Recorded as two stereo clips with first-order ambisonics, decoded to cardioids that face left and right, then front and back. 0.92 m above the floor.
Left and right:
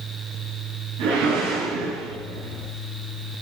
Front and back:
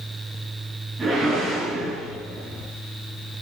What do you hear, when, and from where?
1.0 s a whoosh: 100° right, 9 m